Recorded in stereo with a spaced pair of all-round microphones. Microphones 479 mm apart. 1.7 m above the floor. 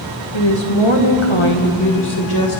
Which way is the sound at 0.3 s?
60° left (ahead or behind).